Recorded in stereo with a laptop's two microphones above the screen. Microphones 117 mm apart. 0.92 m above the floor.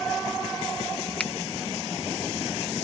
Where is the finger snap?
10° left (ahead or behind).